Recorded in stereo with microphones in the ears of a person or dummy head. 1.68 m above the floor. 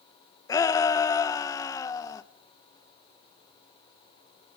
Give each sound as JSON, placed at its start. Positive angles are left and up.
{"t": 0.5, "sound": "a shout", "side_deg": 20, "distance_m": 1.3}